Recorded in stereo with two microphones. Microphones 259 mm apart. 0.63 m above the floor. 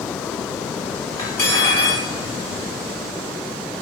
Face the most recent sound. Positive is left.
turn(degrees=15)  # may be behind; listen again after turning